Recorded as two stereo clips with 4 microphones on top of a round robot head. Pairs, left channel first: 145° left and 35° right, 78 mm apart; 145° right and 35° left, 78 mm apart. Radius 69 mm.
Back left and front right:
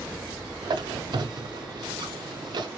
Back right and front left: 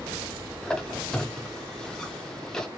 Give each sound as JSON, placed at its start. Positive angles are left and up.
{"t": 0.6, "sound": "a squeak", "azimuth_deg": -65, "distance_m": 0.6}